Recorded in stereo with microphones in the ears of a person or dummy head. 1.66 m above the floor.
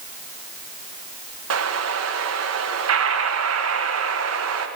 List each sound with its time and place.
1.5 s an explosion: 90° right, 1.7 m